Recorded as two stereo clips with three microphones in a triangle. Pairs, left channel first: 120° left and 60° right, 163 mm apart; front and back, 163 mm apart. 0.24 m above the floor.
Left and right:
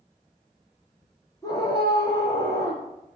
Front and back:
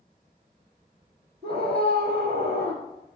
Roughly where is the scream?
Behind.